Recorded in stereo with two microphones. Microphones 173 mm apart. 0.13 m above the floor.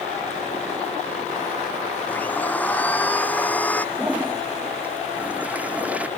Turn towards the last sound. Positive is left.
turn(degrees=-10)  # may be behind; listen again after turning